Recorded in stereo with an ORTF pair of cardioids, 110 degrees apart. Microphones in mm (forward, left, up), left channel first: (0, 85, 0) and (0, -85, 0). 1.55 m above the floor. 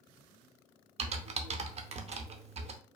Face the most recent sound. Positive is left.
turn(degrees=-40)